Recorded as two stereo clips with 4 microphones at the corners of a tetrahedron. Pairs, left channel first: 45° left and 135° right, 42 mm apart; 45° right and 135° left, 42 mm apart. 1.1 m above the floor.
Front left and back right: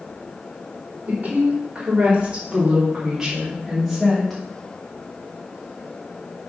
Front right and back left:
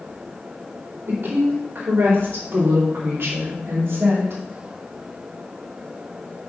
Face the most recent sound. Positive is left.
turn(degrees=130)